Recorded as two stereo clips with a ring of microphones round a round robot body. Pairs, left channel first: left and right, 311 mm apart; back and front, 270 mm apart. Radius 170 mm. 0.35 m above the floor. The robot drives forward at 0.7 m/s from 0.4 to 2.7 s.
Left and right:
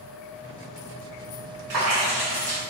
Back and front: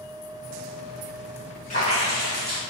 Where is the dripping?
115° right, 5 m; by 2.6 s 120° right, 5 m.